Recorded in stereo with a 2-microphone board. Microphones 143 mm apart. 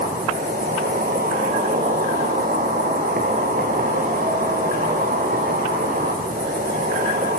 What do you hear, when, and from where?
0.0 s an insect: 85° right, 6.5 m